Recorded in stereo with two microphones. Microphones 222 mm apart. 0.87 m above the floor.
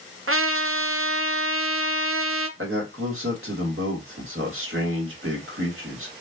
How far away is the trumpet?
About 0.6 m.